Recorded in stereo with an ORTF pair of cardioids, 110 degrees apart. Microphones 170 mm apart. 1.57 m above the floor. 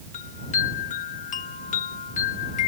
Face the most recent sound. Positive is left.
turn(degrees=50)